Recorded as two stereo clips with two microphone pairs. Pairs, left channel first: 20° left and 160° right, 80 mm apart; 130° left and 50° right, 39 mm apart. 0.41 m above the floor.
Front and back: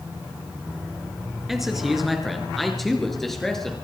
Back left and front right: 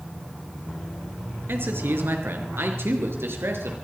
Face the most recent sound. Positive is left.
turn(degrees=-65)